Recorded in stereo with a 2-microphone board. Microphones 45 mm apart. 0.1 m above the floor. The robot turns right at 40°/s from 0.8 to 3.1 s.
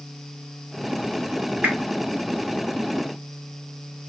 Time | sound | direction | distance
1.6 | a whoosh | 40° right (ahead or behind) | 1.1 m